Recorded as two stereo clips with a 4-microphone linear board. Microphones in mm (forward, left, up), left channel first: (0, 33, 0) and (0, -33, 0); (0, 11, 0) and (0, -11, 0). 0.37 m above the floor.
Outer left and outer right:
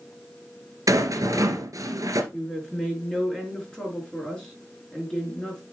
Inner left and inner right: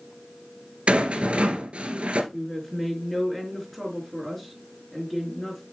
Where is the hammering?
No hammering in this recording.